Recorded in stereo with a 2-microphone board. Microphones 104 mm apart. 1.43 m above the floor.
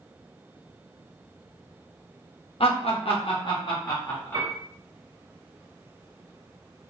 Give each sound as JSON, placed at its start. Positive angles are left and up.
{"t": 2.6, "sound": "laughter", "side_deg": 65, "distance_m": 0.6}
{"t": 4.3, "sound": "a piano", "side_deg": -50, "distance_m": 0.9}